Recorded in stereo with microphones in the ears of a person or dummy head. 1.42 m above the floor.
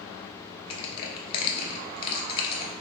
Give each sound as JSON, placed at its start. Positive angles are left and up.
{"t": 0.7, "sound": "crushing", "side_deg": 30, "distance_m": 1.0}